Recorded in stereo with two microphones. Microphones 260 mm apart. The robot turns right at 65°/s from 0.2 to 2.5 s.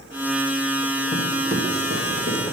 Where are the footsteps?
20° left (ahead or behind), 1.5 m; by 2.5 s 85° right, 2.5 m.